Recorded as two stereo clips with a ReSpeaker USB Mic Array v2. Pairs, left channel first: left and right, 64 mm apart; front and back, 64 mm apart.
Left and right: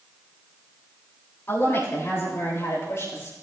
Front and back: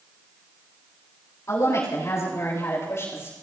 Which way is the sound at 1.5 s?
35° left.